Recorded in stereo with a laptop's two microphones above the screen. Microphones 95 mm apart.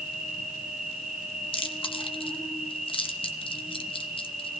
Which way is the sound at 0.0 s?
Centre (ahead or behind).